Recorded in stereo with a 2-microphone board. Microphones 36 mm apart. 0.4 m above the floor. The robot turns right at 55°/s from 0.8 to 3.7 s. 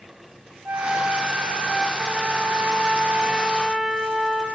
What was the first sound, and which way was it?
A flute, 80° right.